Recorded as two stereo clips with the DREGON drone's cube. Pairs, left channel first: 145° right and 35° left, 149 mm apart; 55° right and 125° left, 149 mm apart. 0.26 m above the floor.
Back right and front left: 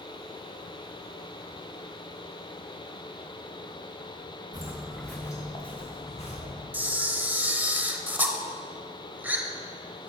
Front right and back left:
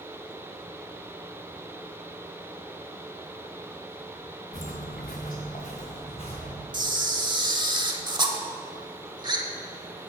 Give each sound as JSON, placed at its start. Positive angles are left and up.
{"t": 4.5, "sound": "footsteps", "azimuth_deg": -30, "distance_m": 1.2}
{"t": 6.7, "sound": "a camera shutter", "azimuth_deg": 105, "distance_m": 0.7}